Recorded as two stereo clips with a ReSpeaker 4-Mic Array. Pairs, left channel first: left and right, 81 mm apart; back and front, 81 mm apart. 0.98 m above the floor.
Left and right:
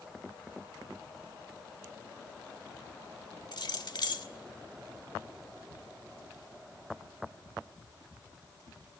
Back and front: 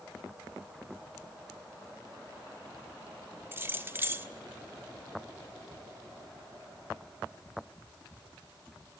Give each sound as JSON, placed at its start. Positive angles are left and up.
{"t": 3.5, "sound": "keys jangling", "azimuth_deg": 60, "distance_m": 1.5}